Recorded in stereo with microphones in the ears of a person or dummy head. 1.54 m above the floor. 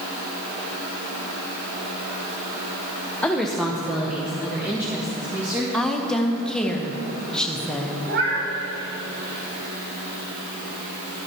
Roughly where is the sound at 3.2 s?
Centre.